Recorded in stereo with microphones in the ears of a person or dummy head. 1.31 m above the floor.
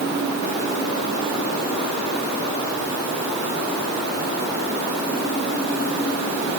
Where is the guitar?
I don't hear a guitar.